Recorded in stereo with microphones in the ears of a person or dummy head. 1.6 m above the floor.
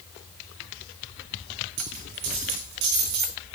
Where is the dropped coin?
60° right (ahead or behind), 4 m.